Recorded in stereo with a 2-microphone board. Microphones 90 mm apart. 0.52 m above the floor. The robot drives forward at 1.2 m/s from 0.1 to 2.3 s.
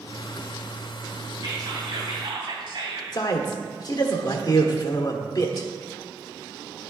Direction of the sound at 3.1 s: 50° left (ahead or behind).